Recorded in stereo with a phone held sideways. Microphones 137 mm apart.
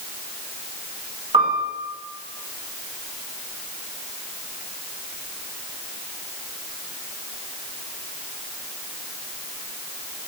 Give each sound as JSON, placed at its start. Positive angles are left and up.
{"t": 1.3, "sound": "a piano", "side_deg": -40, "distance_m": 2.0}